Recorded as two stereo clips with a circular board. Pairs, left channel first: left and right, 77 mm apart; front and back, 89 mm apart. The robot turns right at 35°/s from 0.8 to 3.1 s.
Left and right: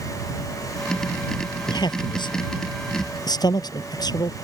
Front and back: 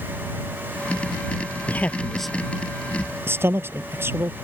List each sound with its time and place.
1.7 s a man speaking: 65° left; by 4.3 s 115° left